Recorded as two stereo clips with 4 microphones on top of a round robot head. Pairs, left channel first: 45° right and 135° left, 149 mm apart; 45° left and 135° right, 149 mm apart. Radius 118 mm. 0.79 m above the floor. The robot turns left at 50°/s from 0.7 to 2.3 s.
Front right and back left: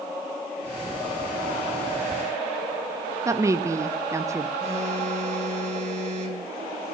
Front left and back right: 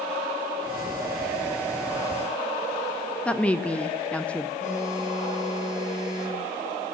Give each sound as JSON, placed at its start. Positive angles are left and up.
{"t": 3.2, "sound": "a woman speaking", "azimuth_deg": 110, "distance_m": 0.5}
{"t": 4.6, "sound": "a phone buzzing", "azimuth_deg": 90, "distance_m": 2.0}